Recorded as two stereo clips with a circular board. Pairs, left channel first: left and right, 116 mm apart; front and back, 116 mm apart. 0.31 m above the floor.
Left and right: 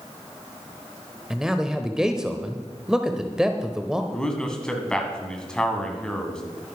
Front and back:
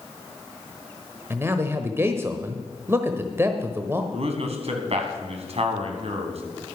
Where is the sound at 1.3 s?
165° right, 0.9 m.